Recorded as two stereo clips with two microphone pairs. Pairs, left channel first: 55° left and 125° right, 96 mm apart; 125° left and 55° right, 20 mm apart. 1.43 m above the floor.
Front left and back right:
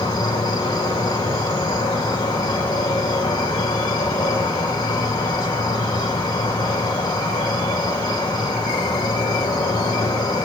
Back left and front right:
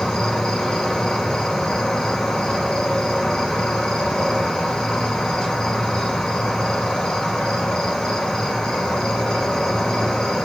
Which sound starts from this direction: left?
An insect, at 0.0 s.